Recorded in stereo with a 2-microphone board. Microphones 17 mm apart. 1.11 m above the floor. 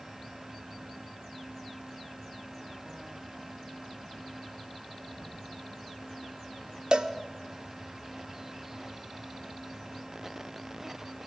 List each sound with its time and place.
5.2 s a whoosh: 70° right (ahead or behind), 6.5 m
6.9 s a cowbell: 65° right (ahead or behind), 0.6 m